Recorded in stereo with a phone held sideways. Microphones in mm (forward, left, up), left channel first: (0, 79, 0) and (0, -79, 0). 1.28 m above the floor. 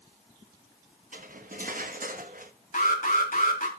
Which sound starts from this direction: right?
Cutlery clinking, at 1.1 s.